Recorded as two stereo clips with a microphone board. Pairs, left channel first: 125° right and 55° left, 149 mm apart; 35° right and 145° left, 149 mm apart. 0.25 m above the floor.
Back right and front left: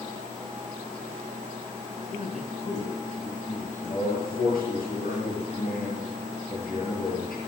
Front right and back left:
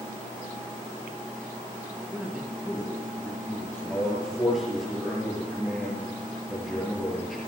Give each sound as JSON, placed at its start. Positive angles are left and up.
{"t": 2.0, "sound": "a man speaking", "azimuth_deg": -140, "distance_m": 3.0}
{"t": 3.9, "sound": "a man speaking", "azimuth_deg": -125, "distance_m": 5.0}